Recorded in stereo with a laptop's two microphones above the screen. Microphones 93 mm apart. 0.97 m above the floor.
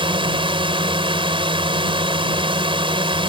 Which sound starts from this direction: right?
A drone, at 0.0 s.